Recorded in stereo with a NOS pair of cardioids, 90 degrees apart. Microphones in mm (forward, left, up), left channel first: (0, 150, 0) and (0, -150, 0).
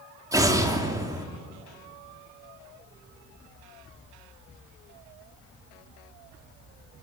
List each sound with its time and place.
0.3 s an explosion: 10° right, 3.5 m